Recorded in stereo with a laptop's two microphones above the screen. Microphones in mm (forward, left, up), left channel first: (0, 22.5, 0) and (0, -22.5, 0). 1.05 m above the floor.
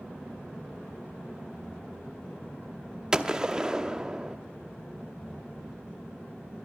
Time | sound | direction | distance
3.1 | a gunshot | 15° right (ahead or behind) | 0.7 m